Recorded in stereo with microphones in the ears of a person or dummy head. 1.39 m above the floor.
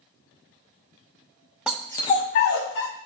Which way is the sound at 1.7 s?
10° right (ahead or behind).